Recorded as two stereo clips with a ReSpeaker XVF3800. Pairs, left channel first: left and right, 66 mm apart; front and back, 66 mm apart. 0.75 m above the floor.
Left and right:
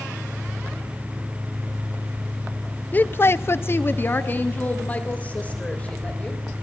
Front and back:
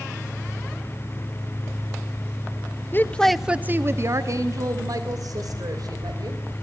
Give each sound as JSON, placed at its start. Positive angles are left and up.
{"t": 2.9, "sound": "a woman speaking", "azimuth_deg": 35, "distance_m": 0.7}